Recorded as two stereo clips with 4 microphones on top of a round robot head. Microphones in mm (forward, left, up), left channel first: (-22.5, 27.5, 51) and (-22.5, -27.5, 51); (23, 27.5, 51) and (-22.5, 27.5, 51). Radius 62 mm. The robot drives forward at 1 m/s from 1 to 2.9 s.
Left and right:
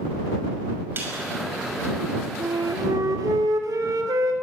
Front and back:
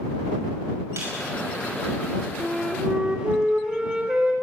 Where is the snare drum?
140° right, 6 m.